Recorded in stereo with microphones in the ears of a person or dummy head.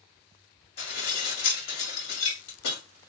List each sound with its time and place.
0.8 s dishes clattering: 75° left (ahead or behind), 2 m